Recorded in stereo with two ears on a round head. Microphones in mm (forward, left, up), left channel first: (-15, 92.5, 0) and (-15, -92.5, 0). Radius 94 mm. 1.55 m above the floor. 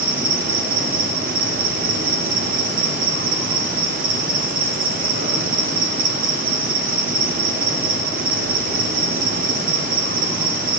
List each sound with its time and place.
0.0 s an insect: 40° right (ahead or behind), 0.8 m